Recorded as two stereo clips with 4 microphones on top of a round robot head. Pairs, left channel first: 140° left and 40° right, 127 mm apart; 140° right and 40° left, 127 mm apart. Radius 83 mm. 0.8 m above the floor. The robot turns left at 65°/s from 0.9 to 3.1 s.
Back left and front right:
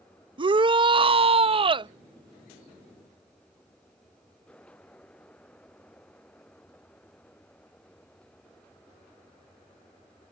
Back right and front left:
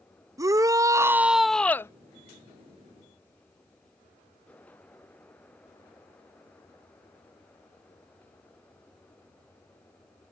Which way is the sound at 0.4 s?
15° right.